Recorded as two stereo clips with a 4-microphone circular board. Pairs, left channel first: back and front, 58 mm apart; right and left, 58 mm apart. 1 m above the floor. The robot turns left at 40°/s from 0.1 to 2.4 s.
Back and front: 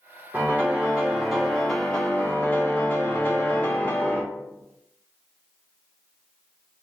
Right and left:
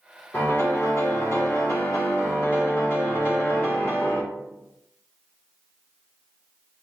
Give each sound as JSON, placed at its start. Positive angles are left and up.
{"t": 0.3, "sound": "a piano", "azimuth_deg": -45, "distance_m": 1.2}